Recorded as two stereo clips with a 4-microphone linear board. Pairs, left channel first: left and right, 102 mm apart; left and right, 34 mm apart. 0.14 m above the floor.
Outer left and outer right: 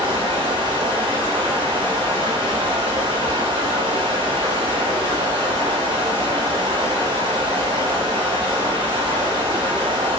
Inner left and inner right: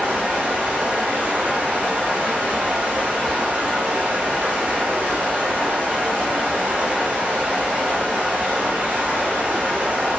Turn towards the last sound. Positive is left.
turn(degrees=-50)  # may be behind; listen again after turning